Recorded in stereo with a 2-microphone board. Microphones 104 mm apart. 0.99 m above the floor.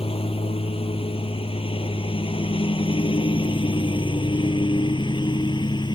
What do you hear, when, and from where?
0.0 s a lawn mower: 70° left (ahead or behind); by 6.0 s 50° left (ahead or behind)